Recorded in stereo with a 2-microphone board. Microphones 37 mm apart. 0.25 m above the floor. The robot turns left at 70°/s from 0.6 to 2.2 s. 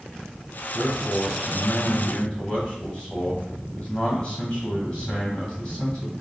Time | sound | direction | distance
0.7 | a man speaking | 155° left | 1.8 m